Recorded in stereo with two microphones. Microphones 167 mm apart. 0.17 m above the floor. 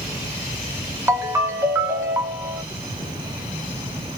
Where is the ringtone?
15° right (ahead or behind), 0.8 m.